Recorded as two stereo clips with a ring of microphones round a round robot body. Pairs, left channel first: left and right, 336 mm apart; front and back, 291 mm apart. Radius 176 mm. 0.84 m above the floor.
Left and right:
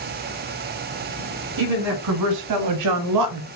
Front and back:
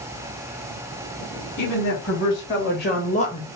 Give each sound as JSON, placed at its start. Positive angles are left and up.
{"t": 1.6, "sound": "a woman speaking", "azimuth_deg": -50, "distance_m": 2.0}